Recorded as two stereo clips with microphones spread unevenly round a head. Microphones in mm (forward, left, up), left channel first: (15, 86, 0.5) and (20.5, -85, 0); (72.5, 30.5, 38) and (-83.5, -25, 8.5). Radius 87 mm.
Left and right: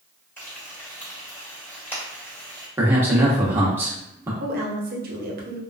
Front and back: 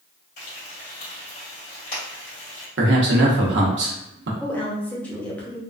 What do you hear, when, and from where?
0.4 s frying: 15° left, 2.0 m
2.8 s a man speaking: 165° right, 0.9 m
4.4 s a woman speaking: 55° right, 0.9 m